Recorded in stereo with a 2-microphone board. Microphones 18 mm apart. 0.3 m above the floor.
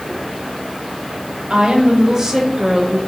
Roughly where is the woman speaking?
Right.